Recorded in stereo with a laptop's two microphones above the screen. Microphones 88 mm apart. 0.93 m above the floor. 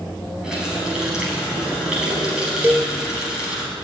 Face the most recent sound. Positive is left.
turn(degrees=-25)  # may be behind; listen again after turning